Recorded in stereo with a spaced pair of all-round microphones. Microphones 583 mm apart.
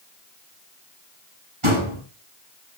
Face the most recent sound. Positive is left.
turn(degrees=-55)  # may be behind; listen again after turning